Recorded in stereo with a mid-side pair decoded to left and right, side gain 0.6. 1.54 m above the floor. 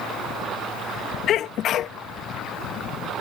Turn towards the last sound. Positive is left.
turn(degrees=55)